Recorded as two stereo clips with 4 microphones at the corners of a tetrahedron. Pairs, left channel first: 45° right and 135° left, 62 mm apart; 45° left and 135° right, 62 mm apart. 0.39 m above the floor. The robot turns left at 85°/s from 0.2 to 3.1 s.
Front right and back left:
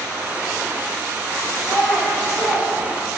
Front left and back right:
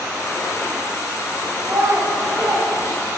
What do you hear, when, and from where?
1.6 s a child speaking: 85° right, 1.0 m; by 3.2 s 145° left, 1.0 m